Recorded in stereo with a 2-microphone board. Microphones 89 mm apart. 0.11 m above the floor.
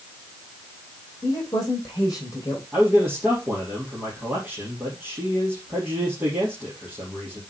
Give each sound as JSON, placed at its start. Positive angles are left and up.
{"t": 1.2, "sound": "a woman speaking", "side_deg": 40, "distance_m": 4.5}
{"t": 2.7, "sound": "a man speaking", "side_deg": -15, "distance_m": 3.0}